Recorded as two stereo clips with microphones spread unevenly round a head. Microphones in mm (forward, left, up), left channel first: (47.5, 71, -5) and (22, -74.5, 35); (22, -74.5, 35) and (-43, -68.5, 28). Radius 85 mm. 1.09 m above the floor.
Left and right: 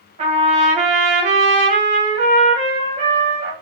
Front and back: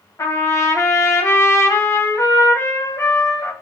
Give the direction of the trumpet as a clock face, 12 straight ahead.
2 o'clock.